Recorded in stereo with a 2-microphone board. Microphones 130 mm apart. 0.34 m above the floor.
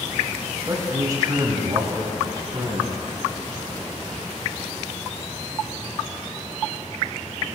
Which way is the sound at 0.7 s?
25° right (ahead or behind).